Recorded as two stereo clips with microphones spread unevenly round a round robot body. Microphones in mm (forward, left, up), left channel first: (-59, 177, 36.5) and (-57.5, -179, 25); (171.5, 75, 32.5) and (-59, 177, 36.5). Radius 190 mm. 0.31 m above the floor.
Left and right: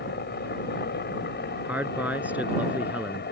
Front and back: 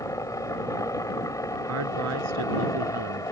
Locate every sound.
0.0 s a helicopter: 45° left
1.6 s a man speaking: 175° right